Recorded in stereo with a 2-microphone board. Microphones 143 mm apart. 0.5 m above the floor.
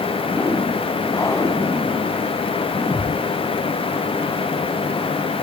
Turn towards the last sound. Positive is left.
turn(degrees=20)  # may be behind; listen again after turning